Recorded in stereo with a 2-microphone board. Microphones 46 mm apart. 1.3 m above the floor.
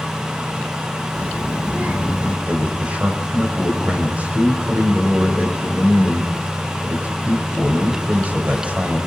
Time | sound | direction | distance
1.1 | a child speaking | 35° right (ahead or behind) | 2.5 m
2.5 | a man speaking | 35° right (ahead or behind) | 5 m